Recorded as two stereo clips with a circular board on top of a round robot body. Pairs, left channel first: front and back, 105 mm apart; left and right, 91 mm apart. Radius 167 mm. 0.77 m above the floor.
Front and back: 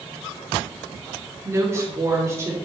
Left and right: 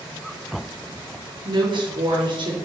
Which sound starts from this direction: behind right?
A woman speaking, at 1.4 s.